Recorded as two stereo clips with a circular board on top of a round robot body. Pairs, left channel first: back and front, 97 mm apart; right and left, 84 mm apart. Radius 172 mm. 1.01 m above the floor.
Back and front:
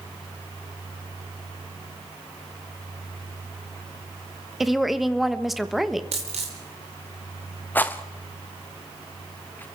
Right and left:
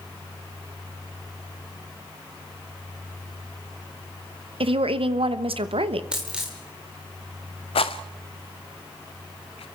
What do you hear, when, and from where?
4.6 s a woman speaking: 90° left, 1.2 m
6.1 s a dropped coin: 15° left, 0.8 m
7.8 s a rattle: 105° right, 0.7 m